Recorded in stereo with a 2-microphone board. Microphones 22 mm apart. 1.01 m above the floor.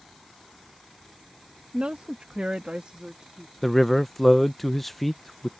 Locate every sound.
1.7 s a woman speaking: 60° right (ahead or behind); by 3.5 s 50° right (ahead or behind)
3.6 s a man speaking: 10° left (ahead or behind)